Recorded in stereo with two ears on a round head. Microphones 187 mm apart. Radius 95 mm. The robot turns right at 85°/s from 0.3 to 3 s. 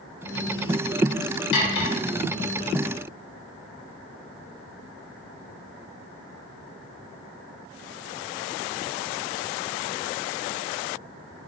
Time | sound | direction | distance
1.5 | cutlery clinking | 60° left (ahead or behind) | 0.9 m